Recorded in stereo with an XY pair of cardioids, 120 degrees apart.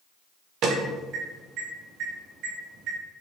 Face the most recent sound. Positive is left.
turn(degrees=-65)